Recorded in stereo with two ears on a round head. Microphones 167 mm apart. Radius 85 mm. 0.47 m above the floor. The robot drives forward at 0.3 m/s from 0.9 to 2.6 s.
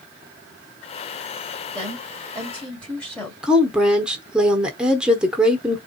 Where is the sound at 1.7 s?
10° left (ahead or behind), 1.4 m; by 3.3 s 5° left (ahead or behind), 1.6 m.